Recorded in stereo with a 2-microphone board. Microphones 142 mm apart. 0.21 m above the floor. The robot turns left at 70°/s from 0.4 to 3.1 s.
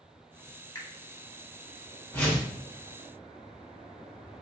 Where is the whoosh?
15° left (ahead or behind), 1.0 m; by 2.5 s 5° right (ahead or behind), 1.0 m.